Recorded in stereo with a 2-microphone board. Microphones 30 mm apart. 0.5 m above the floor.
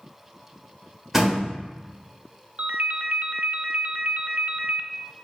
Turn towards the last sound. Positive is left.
turn(degrees=-75)  # may be behind; listen again after turning